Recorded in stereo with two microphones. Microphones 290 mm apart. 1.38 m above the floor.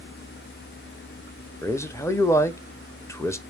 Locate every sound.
1.6 s a man speaking: 10° left (ahead or behind), 0.8 m